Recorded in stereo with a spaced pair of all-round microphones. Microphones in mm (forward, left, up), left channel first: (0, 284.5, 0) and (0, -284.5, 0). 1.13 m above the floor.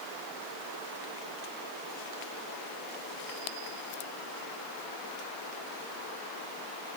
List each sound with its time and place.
Only background noise.